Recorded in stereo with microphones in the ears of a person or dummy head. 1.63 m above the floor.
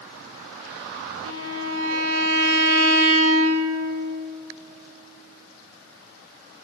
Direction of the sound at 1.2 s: 75° right (ahead or behind).